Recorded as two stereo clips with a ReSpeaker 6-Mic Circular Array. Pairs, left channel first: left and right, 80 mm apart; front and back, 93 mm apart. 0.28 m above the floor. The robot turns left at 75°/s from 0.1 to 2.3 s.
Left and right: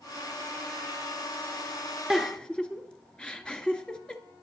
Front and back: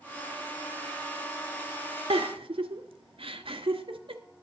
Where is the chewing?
I don't hear chewing.